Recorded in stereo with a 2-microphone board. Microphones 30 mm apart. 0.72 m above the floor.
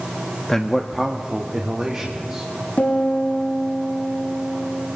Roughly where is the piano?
Left.